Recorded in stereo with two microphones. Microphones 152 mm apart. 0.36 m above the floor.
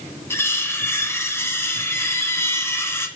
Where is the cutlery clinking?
15° left (ahead or behind), 1.7 m.